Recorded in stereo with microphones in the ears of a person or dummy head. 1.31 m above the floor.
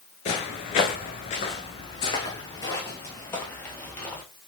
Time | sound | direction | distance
0.2 | footsteps | 35° left (ahead or behind) | 1.5 m